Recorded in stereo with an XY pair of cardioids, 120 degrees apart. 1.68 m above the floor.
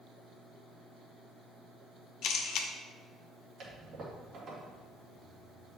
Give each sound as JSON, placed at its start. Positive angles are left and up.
{"t": 2.2, "sound": "a camera shutter", "azimuth_deg": 70, "distance_m": 0.8}
{"t": 3.6, "sound": "a toilet flushing", "azimuth_deg": -55, "distance_m": 2.0}